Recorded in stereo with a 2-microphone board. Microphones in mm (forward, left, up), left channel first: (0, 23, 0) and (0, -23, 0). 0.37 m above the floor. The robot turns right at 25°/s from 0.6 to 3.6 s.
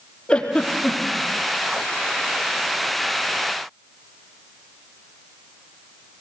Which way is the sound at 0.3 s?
25° left (ahead or behind).